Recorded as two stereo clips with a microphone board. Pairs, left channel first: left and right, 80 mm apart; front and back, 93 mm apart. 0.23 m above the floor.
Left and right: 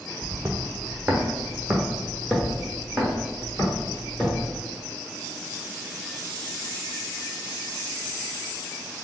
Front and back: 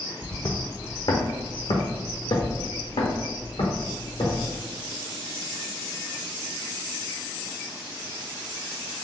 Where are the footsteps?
50° right, 0.6 m; by 4.5 s 10° left, 2.5 m.